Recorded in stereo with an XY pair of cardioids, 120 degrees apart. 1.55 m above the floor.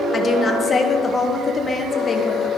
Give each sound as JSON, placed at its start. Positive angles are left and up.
{"t": 0.1, "sound": "a woman speaking", "azimuth_deg": 30, "distance_m": 1.1}